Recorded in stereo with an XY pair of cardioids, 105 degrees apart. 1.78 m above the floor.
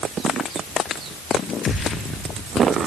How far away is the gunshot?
About 2.5 m.